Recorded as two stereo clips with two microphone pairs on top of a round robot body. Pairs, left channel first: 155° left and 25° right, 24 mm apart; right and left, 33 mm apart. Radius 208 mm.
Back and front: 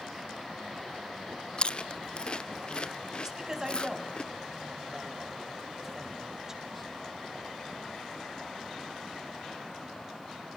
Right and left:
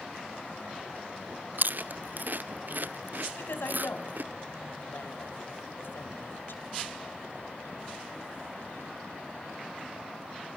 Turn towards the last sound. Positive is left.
turn(degrees=-90)